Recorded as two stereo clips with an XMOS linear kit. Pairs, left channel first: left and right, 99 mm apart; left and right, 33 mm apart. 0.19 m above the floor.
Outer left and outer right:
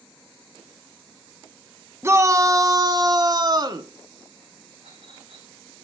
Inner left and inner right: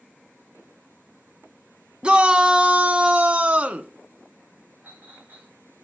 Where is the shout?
30° right (ahead or behind), 1.2 m; by 3.9 s 45° right (ahead or behind), 1.7 m.